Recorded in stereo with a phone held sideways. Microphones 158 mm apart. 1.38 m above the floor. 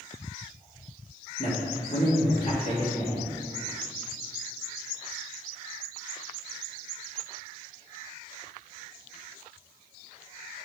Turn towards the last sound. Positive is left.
turn(degrees=50)  # may be behind; listen again after turning